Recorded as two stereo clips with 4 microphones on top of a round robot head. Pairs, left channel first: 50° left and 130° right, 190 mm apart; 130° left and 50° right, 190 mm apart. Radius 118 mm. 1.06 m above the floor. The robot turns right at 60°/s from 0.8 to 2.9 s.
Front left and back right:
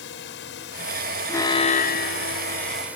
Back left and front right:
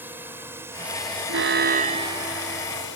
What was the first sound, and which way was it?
A drone, 30° left.